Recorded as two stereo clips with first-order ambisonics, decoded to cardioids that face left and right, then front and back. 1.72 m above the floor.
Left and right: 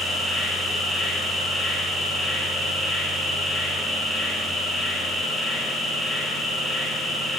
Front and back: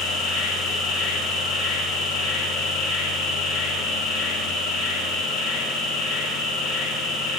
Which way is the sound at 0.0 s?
5° right.